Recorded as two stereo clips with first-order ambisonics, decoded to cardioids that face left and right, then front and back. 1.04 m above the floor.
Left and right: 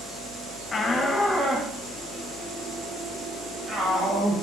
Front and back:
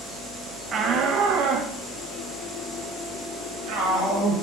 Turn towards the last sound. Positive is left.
turn(degrees=-155)